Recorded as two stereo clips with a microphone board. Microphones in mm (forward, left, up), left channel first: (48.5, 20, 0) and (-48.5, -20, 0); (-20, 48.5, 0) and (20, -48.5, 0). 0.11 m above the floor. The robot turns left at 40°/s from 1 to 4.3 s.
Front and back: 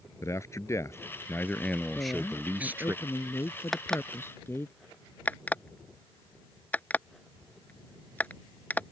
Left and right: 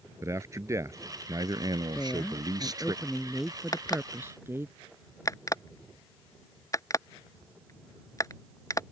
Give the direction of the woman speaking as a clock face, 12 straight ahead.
10 o'clock.